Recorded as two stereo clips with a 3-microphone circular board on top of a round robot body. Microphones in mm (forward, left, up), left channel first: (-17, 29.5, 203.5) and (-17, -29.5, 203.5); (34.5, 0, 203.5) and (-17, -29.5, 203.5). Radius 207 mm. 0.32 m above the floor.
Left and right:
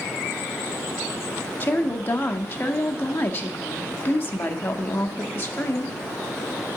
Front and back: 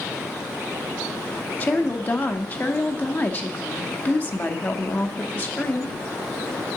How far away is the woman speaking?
About 1.0 m.